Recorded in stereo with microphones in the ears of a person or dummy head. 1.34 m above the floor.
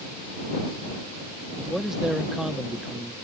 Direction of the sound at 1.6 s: 5° right (ahead or behind).